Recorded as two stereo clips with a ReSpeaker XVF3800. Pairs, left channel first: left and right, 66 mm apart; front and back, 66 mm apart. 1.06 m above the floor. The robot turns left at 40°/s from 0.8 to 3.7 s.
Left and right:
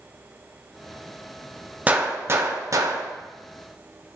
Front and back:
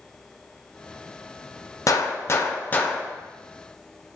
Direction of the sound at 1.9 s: 25° right.